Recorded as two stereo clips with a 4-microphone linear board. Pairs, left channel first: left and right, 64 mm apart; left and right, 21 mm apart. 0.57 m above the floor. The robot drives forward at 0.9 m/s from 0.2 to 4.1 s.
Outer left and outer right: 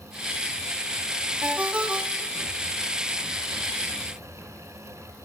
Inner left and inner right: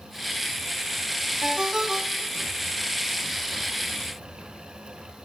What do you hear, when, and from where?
1.4 s a ringtone: 25° right (ahead or behind), 0.8 m; by 2.5 s 10° right (ahead or behind), 1.7 m